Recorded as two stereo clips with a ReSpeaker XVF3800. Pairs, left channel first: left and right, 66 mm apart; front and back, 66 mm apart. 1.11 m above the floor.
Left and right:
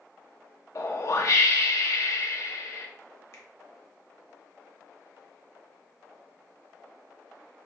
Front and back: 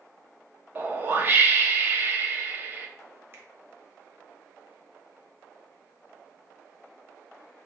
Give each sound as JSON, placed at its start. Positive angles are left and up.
{"t": 0.8, "sound": "a whoosh", "azimuth_deg": 125, "distance_m": 0.6}
{"t": 3.3, "sound": "a finger snap", "azimuth_deg": 130, "distance_m": 0.9}